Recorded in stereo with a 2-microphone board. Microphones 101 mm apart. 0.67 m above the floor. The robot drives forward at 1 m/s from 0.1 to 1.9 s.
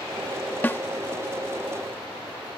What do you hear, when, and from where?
0.6 s a snare drum: 20° left (ahead or behind)